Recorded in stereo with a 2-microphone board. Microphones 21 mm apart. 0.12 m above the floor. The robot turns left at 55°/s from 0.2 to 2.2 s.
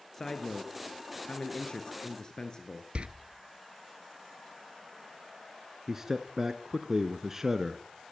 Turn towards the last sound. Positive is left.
turn(degrees=-20)  # may be behind; listen again after turning